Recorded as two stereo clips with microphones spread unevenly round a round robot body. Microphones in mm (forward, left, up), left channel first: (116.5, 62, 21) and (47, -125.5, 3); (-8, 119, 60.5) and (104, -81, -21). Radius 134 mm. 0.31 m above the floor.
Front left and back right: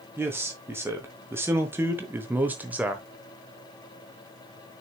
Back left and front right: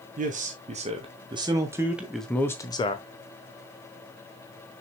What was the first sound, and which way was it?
A man speaking, 35° right.